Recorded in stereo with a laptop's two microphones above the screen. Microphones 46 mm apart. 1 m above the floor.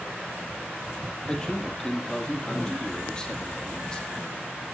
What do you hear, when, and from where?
1.3 s a man speaking: 15° left (ahead or behind), 2.0 m